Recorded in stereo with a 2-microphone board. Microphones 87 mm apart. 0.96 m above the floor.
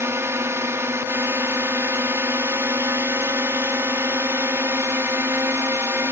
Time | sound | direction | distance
0.0 | a drone | 30° right (ahead or behind) | ?